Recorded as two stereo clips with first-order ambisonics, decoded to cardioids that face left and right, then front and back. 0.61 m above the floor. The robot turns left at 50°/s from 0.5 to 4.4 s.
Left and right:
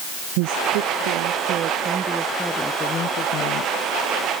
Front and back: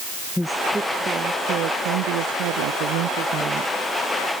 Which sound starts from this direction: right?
A woman speaking, at 0.4 s.